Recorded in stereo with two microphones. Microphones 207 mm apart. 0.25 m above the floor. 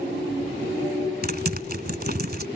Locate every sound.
1.2 s typing on a keyboard: 50° right (ahead or behind)